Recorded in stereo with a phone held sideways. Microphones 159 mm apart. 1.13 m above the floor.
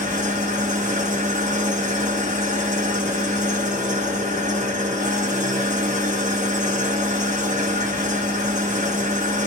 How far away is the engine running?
About 1.0 m.